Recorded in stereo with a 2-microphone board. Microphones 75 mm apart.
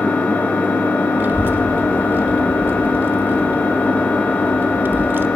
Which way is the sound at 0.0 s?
20° left (ahead or behind).